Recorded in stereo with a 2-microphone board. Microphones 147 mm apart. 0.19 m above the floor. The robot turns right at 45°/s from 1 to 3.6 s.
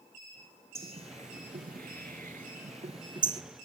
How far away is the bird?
About 0.6 m.